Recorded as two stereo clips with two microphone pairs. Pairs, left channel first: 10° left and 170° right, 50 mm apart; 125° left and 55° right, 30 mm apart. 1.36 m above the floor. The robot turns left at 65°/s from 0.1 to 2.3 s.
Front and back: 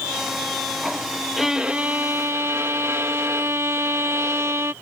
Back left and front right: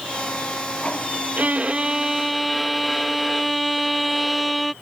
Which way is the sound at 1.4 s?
80° right.